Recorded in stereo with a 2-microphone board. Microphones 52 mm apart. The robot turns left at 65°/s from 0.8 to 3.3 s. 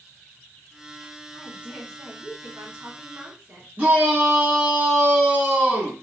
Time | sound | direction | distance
1.3 | a woman speaking | 15° right | 2 m
3.8 | a shout | 35° right (ahead or behind) | 1.8 m